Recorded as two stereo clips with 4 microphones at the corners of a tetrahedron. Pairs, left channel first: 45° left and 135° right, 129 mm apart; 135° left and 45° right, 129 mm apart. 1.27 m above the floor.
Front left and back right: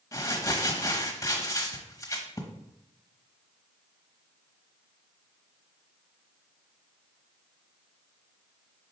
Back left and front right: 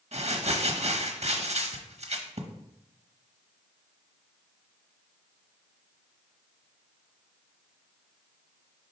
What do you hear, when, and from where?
0.1 s crumpling: 20° right, 1.0 m